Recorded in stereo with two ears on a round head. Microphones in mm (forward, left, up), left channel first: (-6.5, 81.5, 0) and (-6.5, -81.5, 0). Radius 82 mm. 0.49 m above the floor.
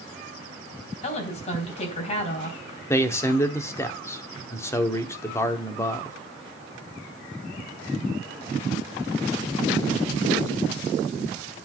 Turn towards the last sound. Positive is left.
turn(degrees=15)  # may be behind; listen again after turning